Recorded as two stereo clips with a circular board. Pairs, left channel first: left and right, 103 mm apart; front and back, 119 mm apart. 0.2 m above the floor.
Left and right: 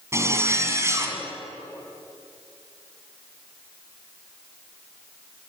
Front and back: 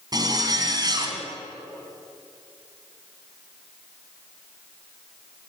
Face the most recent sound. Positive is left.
turn(degrees=-140)